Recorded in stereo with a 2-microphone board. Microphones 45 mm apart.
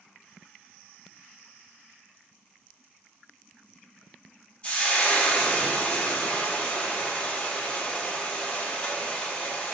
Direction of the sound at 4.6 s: 25° left (ahead or behind).